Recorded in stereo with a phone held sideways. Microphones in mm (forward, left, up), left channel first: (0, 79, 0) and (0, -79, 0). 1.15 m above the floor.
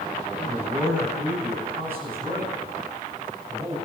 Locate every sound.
0.3 s a man speaking: 5° right (ahead or behind), 10 m; by 3.8 s 25° right (ahead or behind), 8.5 m